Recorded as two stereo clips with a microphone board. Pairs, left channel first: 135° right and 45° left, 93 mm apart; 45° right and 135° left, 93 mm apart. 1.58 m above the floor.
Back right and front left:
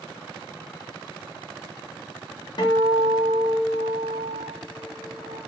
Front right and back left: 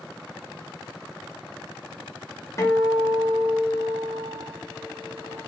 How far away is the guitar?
About 0.8 m.